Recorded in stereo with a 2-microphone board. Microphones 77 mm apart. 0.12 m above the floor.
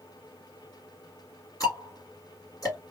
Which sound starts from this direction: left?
Ticking, at 1.6 s.